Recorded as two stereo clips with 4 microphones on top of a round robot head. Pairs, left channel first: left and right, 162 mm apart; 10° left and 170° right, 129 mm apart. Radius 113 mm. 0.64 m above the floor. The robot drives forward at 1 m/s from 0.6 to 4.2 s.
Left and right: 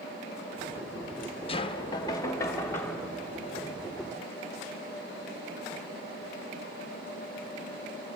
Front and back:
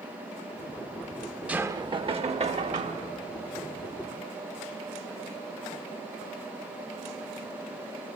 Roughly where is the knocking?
Behind left.